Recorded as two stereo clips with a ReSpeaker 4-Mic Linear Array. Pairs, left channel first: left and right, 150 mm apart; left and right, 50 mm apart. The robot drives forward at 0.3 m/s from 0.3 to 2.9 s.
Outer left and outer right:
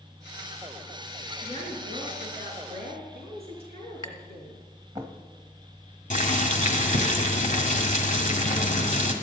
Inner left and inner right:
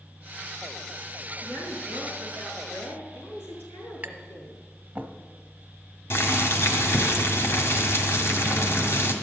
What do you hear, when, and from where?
1.4 s a woman speaking: 45° left (ahead or behind), 5.5 m
4.0 s tapping: 25° right (ahead or behind), 1.1 m
6.1 s boiling: 60° left (ahead or behind), 1.9 m